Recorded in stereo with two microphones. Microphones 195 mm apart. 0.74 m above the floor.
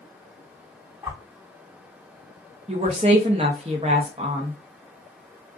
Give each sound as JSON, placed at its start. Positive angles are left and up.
{"t": 1.0, "sound": "a whoosh", "side_deg": -10, "distance_m": 1.0}
{"t": 2.7, "sound": "a woman speaking", "side_deg": -30, "distance_m": 0.6}